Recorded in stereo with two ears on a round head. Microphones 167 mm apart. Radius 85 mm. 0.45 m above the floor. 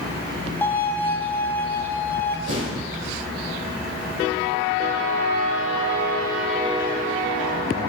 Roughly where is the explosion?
Right.